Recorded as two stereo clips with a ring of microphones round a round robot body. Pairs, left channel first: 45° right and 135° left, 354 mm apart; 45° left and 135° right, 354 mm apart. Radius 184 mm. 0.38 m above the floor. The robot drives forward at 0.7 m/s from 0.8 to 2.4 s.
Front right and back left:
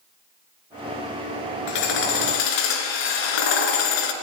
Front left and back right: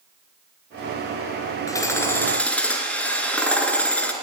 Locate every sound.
1.7 s hammering: 35° right, 3.5 m; by 4.1 s 40° right, 3 m